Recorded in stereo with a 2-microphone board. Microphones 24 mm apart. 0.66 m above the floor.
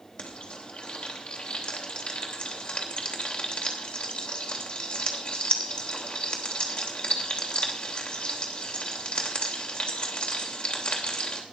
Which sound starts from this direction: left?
Frying, at 0.2 s.